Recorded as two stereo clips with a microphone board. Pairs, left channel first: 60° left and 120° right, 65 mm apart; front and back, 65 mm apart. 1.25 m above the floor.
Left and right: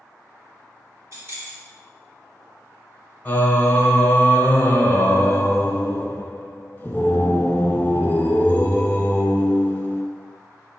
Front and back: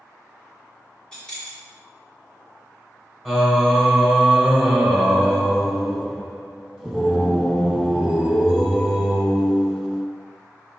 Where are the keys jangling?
75° right, 2.5 m.